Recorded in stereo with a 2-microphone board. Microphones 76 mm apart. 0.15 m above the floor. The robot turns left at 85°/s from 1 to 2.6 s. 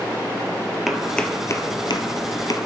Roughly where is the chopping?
Centre.